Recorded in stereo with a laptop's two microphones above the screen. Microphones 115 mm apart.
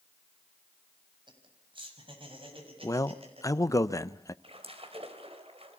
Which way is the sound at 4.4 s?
60° right (ahead or behind).